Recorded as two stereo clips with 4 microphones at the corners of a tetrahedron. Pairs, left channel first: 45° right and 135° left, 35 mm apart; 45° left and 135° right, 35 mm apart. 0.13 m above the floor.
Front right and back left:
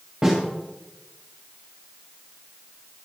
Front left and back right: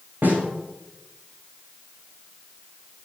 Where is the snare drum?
155° right, 9 m.